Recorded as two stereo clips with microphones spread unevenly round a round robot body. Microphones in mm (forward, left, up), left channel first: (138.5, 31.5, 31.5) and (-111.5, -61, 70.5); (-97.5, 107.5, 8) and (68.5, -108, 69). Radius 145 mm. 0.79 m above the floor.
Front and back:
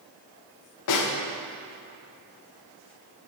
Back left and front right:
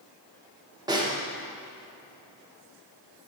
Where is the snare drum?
25° left, 1.0 m.